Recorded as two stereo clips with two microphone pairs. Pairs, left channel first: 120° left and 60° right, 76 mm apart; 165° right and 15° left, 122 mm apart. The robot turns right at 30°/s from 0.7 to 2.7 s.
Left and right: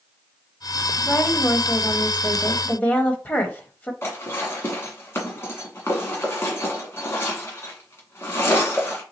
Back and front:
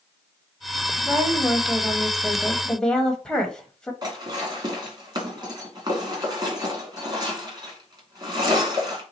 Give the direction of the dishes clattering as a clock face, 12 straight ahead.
10 o'clock.